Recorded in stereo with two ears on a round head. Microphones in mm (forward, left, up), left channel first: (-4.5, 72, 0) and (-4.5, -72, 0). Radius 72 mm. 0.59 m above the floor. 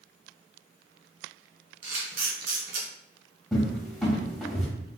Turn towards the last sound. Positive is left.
turn(degrees=0)  # may be behind; listen again after turning